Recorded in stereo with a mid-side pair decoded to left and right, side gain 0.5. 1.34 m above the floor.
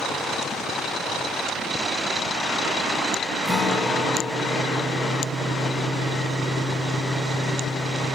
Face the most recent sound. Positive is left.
turn(degrees=25)